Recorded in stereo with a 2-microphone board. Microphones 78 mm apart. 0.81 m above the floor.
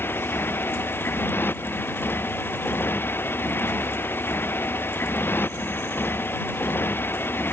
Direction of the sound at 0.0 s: 30° left (ahead or behind).